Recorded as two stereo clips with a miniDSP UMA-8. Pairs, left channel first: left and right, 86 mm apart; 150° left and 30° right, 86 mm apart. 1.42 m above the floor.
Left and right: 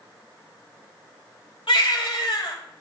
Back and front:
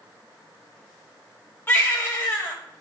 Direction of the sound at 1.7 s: 85° left.